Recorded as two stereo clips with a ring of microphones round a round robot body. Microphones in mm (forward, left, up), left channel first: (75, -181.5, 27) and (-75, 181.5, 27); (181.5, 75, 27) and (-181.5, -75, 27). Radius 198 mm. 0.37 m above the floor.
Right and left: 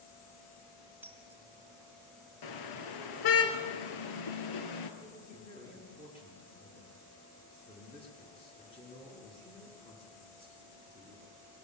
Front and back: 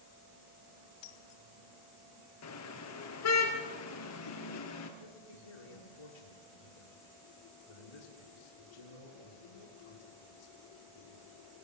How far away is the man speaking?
About 5.5 m.